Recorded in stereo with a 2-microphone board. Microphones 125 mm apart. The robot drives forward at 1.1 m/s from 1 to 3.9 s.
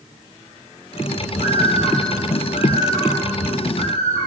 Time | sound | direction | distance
1.4 | a bird | 85° left | 4.5 m